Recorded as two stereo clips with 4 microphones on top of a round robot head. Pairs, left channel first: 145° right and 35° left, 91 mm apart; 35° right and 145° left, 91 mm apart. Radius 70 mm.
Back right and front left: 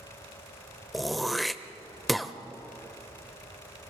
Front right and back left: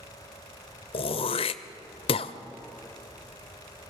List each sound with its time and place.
0.9 s throat clearing: 55° right, 0.7 m